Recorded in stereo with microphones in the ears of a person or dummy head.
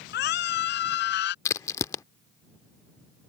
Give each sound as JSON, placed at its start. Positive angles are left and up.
{"t": 0.1, "sound": "a scream", "side_deg": 65}
{"t": 1.4, "sound": "a crack", "side_deg": 20}